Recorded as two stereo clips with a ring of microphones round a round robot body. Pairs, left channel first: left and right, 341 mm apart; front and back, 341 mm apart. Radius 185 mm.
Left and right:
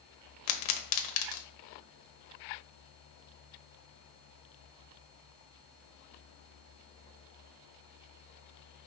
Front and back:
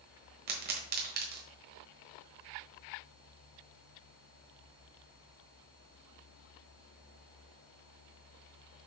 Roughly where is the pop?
Behind left.